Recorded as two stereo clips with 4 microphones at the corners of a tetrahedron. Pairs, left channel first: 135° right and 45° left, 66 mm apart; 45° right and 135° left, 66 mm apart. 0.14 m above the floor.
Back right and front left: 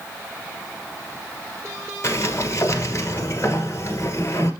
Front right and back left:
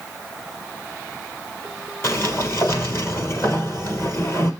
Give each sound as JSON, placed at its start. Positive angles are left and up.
{"t": 2.0, "sound": "a sliding door", "azimuth_deg": -90, "distance_m": 1.4}